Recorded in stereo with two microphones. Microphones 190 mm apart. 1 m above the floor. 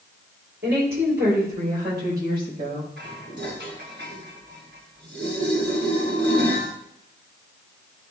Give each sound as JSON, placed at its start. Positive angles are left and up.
{"t": 0.6, "sound": "a woman speaking", "side_deg": -65, "distance_m": 3.5}
{"t": 3.0, "sound": "dishes clattering", "side_deg": -80, "distance_m": 2.5}